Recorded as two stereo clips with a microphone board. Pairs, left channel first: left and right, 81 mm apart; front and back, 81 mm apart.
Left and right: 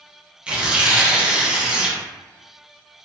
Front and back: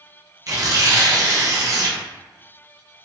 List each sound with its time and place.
0.5 s tearing paper: 160° right, 0.5 m